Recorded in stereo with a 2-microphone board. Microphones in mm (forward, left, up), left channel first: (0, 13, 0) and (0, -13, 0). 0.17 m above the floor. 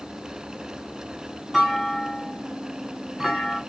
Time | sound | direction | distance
1.5 | a clunk | centre (ahead or behind) | 1.7 m